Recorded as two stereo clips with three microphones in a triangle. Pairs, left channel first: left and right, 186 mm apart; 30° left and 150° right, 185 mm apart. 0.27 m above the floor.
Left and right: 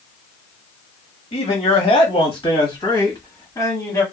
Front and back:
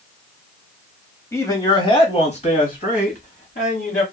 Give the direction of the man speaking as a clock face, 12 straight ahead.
9 o'clock.